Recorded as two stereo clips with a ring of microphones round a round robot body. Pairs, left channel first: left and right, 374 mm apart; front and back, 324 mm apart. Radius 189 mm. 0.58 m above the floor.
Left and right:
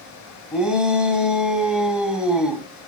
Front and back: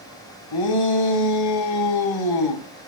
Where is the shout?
Straight ahead, 3.5 m.